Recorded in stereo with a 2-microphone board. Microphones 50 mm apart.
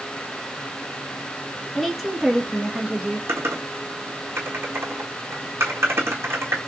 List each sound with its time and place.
1.8 s a woman speaking: 5° left (ahead or behind), 1.1 m; by 3.2 s 25° right (ahead or behind), 1.1 m
3.3 s typing on a keyboard: 55° right (ahead or behind), 1.7 m